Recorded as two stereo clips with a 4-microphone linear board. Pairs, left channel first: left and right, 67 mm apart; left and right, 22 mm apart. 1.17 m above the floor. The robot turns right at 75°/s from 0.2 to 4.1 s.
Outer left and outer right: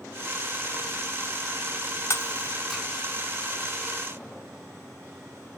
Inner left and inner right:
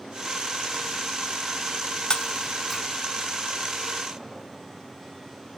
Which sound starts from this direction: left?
Breaking glass, at 2.1 s.